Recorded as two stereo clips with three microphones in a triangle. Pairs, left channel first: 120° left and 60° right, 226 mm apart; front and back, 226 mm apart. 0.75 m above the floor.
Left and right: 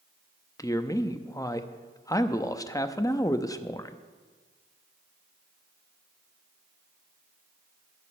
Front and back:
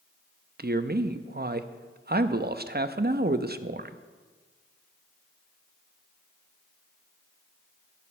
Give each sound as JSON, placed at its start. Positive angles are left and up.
{"t": 0.6, "sound": "a man speaking", "azimuth_deg": -175, "distance_m": 0.5}